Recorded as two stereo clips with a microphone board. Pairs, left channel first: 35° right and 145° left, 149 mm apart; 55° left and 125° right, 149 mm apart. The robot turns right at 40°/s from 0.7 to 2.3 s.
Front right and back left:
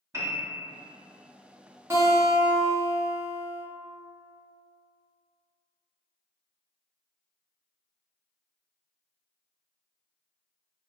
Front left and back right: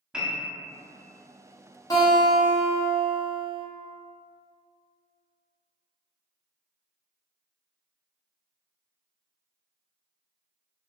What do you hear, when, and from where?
0.1 s a piano: 160° left, 0.6 m
1.9 s a guitar: 95° left, 0.7 m; by 3.6 s 110° left, 0.7 m